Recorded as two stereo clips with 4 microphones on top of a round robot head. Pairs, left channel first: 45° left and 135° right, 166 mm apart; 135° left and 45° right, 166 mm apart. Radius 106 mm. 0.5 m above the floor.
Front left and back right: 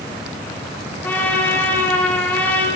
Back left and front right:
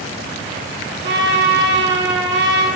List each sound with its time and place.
1.0 s a trumpet: 40° right, 8.5 m